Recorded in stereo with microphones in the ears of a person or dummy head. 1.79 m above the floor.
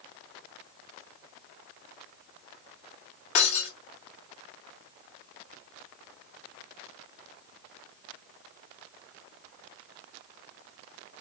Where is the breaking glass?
35° left (ahead or behind), 1.4 m.